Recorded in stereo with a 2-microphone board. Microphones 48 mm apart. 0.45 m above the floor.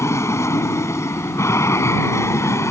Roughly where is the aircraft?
Left.